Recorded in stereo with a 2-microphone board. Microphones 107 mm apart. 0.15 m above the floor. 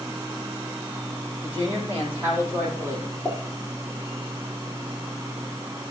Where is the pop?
5° right (ahead or behind), 6.5 m.